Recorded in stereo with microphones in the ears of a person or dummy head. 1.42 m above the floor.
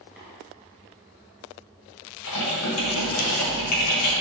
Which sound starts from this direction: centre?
Tapping, at 0.2 s.